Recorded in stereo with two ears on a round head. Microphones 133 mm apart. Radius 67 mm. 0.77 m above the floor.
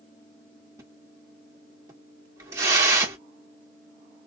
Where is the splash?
20° right (ahead or behind), 1.3 m.